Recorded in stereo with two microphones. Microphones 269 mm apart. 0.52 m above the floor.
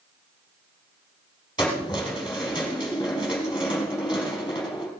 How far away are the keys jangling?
About 3.5 m.